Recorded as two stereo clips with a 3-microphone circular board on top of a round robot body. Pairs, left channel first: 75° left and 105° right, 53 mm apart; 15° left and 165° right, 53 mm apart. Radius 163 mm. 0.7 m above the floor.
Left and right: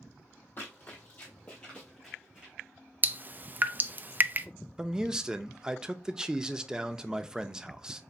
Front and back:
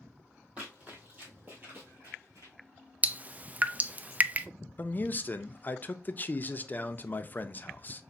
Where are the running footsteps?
130° left, 1.4 m; by 2.5 s 170° right, 0.7 m.